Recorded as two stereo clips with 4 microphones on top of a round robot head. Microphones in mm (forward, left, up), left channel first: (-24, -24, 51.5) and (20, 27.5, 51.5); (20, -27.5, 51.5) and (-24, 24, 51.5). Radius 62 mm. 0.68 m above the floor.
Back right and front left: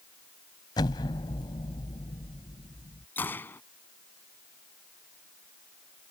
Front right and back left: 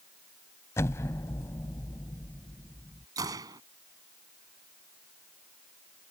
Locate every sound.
0.8 s an explosion: 105° right
3.2 s a gunshot: 170° left